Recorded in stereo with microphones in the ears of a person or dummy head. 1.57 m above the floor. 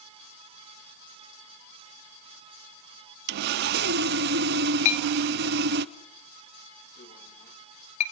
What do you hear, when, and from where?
3.3 s sawing: 65° right (ahead or behind), 0.6 m
4.8 s a clink: 40° left (ahead or behind), 3.5 m